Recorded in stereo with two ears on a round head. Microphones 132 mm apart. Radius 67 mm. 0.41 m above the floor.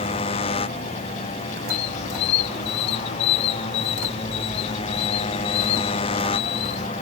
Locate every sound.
0.0 s a motorcycle: 40° left (ahead or behind)
1.7 s a squeak: 85° left